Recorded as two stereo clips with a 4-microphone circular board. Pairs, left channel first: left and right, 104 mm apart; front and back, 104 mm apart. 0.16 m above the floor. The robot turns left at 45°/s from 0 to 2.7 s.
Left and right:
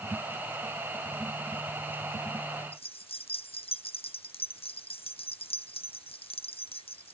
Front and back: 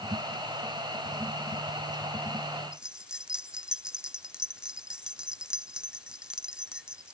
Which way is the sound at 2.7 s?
100° left.